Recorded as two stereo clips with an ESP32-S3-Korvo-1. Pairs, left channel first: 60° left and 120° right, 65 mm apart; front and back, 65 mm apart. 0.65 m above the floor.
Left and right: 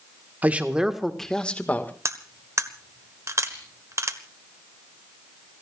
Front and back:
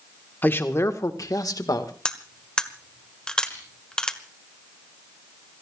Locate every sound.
0.4 s a man speaking: 60° right, 1.6 m; by 1.9 s 5° left, 1.9 m
2.0 s cutlery clinking: 80° right, 1.3 m
3.5 s crushing: 60° right, 7.5 m